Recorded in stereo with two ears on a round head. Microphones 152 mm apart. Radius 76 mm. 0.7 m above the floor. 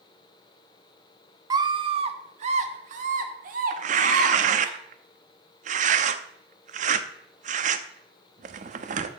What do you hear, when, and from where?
1.5 s a scream: 20° right (ahead or behind), 1.0 m; by 4.7 s 55° right (ahead or behind), 2.5 m
3.7 s tearing paper: 45° right (ahead or behind), 0.7 m